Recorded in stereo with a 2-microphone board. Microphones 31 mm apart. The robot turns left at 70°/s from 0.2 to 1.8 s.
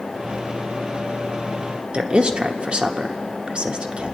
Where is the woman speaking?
35° right (ahead or behind), 1.0 m.